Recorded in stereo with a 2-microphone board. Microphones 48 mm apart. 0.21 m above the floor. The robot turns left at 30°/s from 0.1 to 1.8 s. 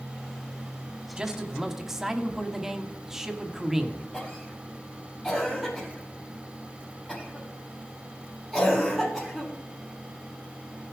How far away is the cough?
About 7 m.